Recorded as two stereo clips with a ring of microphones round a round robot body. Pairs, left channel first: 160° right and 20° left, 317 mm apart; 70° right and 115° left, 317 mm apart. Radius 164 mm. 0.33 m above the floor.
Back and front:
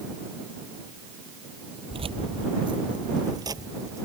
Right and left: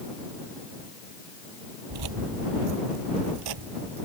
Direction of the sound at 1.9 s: 95° left.